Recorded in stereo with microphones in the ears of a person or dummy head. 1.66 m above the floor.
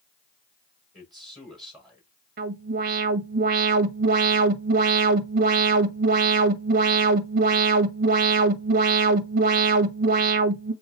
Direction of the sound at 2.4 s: 50° right (ahead or behind).